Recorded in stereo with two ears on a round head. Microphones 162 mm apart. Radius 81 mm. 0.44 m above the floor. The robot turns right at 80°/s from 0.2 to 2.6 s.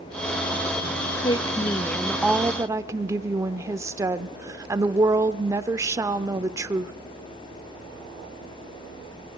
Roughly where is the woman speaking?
Left.